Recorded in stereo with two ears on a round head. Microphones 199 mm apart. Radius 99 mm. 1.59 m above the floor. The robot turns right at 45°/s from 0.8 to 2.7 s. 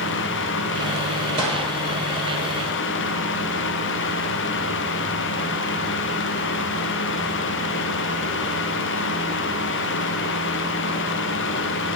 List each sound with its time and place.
1.4 s a gunshot: 25° right (ahead or behind), 3 m; by 1.7 s 40° right (ahead or behind), 3 m